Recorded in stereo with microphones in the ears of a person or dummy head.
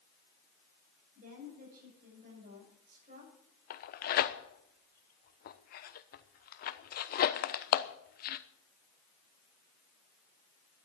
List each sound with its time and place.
1.1 s a woman speaking: 45° right (ahead or behind), 7.5 m
3.7 s tearing paper: 50° left (ahead or behind), 1.0 m